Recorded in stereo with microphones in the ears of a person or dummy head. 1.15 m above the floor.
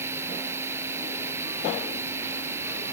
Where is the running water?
15° right (ahead or behind).